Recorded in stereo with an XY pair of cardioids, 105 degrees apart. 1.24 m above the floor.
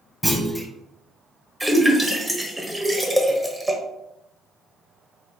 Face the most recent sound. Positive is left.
turn(degrees=-10)